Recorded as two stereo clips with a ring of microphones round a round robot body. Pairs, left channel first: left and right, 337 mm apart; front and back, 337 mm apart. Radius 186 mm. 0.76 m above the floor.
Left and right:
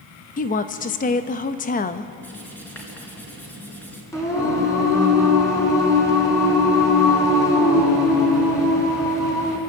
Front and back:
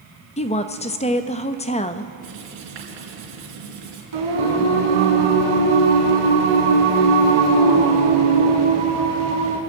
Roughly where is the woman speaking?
Ahead left.